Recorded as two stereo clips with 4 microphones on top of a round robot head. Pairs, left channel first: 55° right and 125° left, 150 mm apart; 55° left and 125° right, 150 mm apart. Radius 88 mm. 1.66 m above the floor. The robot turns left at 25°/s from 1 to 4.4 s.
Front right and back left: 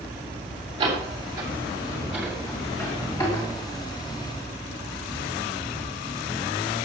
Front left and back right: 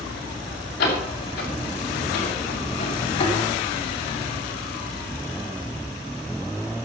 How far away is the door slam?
About 7 m.